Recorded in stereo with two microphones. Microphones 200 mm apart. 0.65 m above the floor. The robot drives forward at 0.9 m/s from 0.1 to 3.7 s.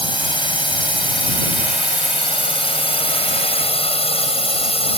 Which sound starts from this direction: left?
A drone, at 0.0 s.